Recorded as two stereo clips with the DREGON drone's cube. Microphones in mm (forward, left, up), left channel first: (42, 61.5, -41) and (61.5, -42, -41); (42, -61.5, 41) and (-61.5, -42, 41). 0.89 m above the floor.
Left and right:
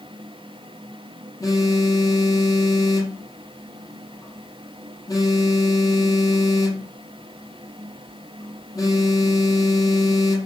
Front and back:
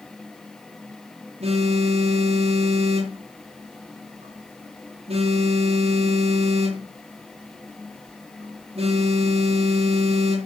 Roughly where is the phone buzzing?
Behind.